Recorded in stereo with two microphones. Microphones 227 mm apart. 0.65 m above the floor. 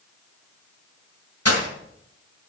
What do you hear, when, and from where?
1.4 s breaking glass: 85° left, 2 m